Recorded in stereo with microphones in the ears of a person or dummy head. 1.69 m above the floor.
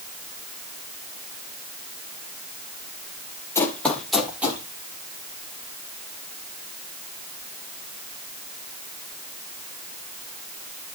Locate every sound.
3.5 s running footsteps: 15° left (ahead or behind), 3 m; by 4.6 s 5° right (ahead or behind), 3 m